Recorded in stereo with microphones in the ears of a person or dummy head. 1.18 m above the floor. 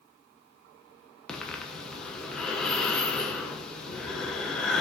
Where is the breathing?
10° left (ahead or behind), 0.6 m.